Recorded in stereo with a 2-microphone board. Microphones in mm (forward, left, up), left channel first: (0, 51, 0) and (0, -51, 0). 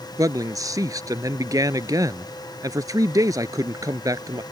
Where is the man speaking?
35° right (ahead or behind).